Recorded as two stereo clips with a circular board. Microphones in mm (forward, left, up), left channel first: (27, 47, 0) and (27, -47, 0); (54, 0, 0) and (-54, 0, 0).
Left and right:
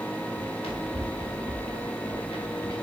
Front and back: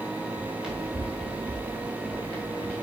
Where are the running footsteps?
100° left, 3 m; by 2.8 s 75° left, 3.5 m.